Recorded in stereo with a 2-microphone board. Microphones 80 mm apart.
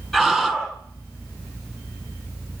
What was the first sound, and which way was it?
A scream, 5° left (ahead or behind).